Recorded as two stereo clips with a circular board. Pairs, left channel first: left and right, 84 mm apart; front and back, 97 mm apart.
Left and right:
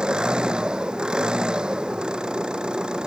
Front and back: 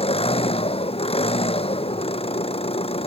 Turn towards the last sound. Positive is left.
turn(degrees=-10)